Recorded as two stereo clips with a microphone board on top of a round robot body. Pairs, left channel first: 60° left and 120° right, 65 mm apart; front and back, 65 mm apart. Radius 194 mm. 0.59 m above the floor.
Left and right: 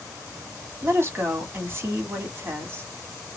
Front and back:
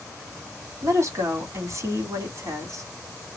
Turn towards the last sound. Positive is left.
turn(degrees=-165)